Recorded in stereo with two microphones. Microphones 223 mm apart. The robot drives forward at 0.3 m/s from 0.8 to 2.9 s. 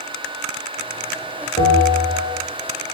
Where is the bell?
15° left (ahead or behind), 0.9 m; by 2.4 s 20° left (ahead or behind), 0.7 m.